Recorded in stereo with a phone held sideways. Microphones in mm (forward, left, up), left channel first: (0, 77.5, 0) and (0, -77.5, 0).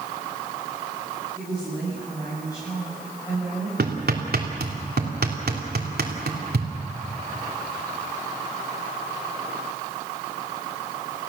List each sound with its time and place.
1.4 s a woman speaking: 25° left (ahead or behind), 8.5 m
3.8 s hammering: 80° right, 3 m